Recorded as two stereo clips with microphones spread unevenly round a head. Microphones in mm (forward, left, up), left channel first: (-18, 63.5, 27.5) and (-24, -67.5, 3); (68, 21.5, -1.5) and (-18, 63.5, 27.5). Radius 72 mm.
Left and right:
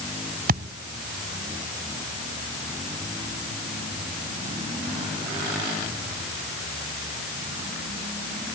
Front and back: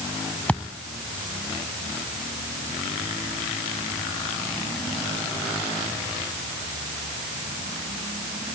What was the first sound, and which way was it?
A thud, 115° right.